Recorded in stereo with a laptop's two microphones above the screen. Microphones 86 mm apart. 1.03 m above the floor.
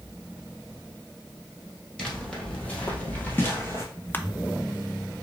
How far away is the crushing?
About 0.6 m.